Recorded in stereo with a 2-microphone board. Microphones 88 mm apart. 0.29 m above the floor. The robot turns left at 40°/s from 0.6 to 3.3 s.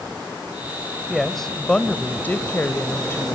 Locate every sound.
1.1 s a woman speaking: centre (ahead or behind), 1.2 m; by 3.4 s 25° left (ahead or behind), 1.2 m